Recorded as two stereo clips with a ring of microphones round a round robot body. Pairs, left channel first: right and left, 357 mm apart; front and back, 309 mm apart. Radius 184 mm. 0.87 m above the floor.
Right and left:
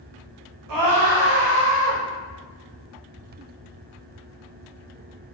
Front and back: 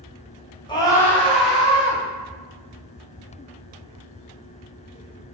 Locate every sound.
0.7 s a scream: 75° left, 1.2 m; by 2.0 s 95° left, 1.8 m